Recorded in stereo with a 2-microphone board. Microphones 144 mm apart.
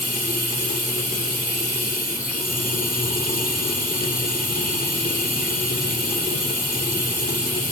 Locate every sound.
0.0 s running water: 70° left (ahead or behind), 1.8 m